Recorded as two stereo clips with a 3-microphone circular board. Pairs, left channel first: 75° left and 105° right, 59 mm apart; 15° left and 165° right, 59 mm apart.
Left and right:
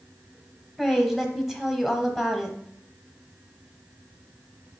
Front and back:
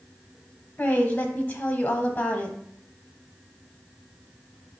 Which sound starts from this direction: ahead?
A woman speaking, at 0.8 s.